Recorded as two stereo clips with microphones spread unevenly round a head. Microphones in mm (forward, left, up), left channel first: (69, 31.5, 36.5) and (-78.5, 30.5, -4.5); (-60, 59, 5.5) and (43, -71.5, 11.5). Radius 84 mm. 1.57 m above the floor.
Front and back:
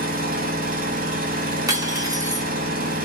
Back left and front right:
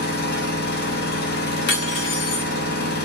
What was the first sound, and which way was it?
An engine running, 150° left.